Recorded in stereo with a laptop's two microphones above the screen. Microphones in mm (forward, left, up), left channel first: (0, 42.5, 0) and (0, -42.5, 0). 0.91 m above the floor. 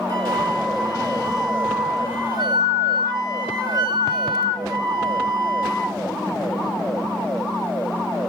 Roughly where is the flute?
Right.